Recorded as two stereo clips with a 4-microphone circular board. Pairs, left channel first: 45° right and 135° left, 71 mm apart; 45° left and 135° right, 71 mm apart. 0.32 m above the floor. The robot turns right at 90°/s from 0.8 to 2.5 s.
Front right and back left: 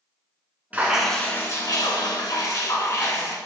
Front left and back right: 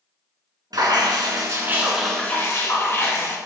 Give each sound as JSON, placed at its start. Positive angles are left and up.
{"t": 0.7, "sound": "dripping", "azimuth_deg": -155, "distance_m": 1.8}